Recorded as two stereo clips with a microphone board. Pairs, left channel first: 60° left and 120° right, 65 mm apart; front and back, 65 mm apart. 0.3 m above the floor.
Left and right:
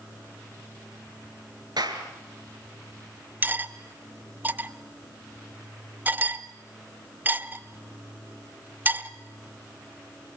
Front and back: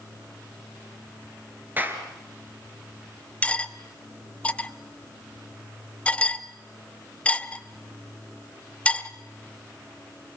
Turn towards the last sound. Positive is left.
turn(degrees=-65)